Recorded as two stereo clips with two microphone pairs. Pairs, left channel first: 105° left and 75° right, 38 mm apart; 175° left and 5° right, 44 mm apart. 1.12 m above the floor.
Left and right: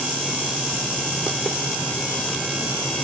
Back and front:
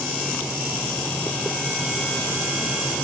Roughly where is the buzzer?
No buzzer in this recording.